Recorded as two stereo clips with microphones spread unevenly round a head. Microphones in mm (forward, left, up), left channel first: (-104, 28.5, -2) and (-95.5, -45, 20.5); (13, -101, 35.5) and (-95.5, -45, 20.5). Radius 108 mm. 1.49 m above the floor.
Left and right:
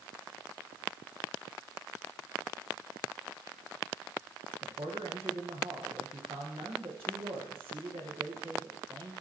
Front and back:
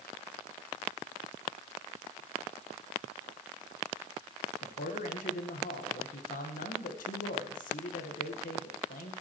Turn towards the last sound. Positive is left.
turn(degrees=-25)